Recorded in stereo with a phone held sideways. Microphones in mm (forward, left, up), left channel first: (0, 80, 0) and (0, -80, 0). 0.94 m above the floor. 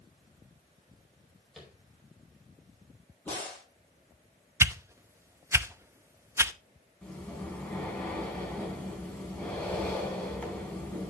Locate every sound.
1.6 s tapping: centre (ahead or behind), 4.5 m
3.2 s a crack: 10° left (ahead or behind), 8 m
4.6 s a whoosh: 15° right (ahead or behind), 0.6 m
7.0 s breathing: 10° left (ahead or behind), 3.5 m